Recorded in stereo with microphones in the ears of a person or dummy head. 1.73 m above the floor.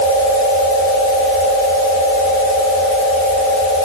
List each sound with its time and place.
Only background noise.